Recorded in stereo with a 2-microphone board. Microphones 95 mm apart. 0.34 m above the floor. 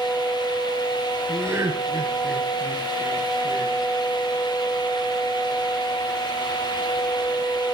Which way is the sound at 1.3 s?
30° right (ahead or behind).